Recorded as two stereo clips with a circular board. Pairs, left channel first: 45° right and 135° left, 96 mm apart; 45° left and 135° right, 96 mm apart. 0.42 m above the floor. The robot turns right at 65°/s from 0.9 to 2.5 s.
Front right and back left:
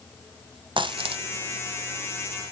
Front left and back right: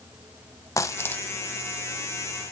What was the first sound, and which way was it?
A dropped coin, 105° left.